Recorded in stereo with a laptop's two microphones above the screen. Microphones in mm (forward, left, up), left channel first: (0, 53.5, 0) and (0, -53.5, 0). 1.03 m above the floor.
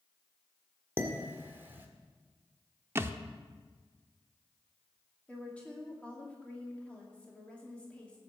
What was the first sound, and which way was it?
Dishes clattering, 20° right (ahead or behind).